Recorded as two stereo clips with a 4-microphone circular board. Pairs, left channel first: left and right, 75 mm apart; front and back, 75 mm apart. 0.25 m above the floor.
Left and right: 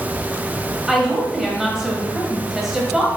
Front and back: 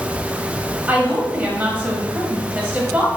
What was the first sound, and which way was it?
A woman speaking, 170° right.